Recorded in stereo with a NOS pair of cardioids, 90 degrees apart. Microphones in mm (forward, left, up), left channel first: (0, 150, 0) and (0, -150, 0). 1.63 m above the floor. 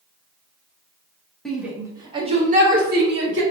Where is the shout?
Straight ahead, 1.6 m; by 3.4 s 40° right, 2 m.